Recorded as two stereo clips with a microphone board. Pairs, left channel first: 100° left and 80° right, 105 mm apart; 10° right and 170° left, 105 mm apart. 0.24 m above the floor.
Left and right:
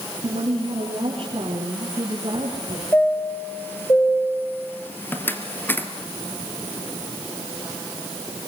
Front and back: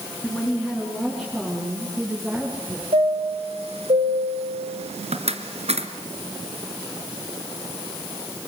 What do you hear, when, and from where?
0.2 s a woman speaking: 90° right, 5 m; by 2.8 s 115° right, 7 m
2.9 s a chime: 170° left, 2 m